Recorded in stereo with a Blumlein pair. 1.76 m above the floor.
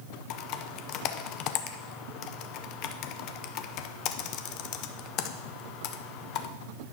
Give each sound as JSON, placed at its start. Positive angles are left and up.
{"t": 0.3, "sound": "typing on a keyboard", "azimuth_deg": 40, "distance_m": 0.6}